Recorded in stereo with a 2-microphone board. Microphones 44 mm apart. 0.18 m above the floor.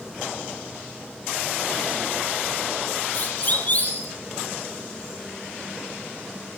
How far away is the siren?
About 5 m.